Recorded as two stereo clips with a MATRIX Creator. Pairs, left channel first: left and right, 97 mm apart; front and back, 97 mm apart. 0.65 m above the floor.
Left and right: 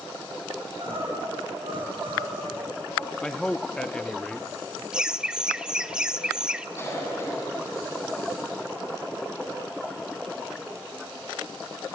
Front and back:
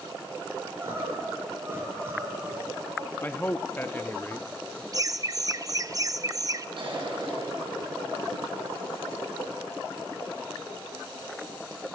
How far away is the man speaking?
About 0.8 m.